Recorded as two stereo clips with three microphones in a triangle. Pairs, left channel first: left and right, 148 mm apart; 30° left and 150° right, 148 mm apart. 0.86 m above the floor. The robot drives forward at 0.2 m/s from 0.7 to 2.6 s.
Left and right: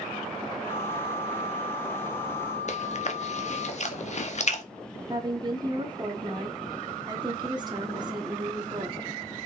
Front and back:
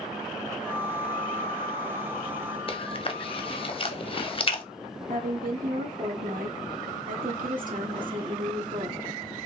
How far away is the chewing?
About 0.6 m.